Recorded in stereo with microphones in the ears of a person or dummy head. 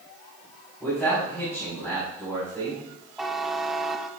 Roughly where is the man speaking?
Centre.